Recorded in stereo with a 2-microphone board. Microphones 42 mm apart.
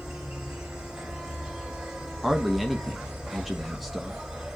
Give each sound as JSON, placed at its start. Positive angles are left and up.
{"t": 0.0, "sound": "an insect", "side_deg": -15, "distance_m": 2.0}
{"t": 2.2, "sound": "a man speaking", "side_deg": 0, "distance_m": 0.9}